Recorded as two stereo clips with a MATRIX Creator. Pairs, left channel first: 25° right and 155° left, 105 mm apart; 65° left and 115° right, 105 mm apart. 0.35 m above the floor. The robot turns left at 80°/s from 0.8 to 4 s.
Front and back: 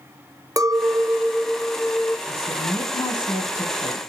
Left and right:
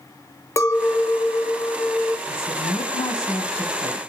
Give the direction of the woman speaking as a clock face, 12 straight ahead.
9 o'clock.